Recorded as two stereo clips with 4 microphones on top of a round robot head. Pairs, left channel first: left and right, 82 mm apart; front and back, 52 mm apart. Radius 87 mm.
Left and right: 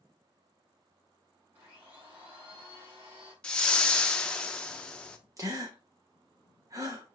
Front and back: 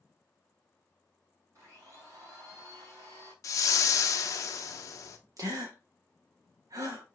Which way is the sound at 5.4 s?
150° right.